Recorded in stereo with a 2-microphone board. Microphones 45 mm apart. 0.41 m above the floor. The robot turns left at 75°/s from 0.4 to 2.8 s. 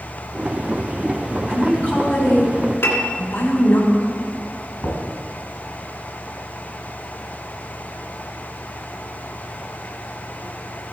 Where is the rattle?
I don't hear a rattle.